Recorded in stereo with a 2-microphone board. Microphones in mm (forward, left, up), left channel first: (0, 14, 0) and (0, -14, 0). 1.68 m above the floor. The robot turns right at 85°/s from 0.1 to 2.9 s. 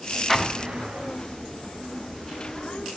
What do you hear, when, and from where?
0.3 s an explosion: 175° left, 0.6 m; by 1.1 s 120° right, 0.6 m